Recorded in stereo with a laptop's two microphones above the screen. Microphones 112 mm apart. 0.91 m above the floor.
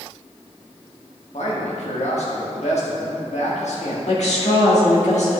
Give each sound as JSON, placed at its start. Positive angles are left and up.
{"t": 1.3, "sound": "a man speaking", "side_deg": 70, "distance_m": 1.6}
{"t": 4.1, "sound": "a woman speaking", "side_deg": 70, "distance_m": 1.9}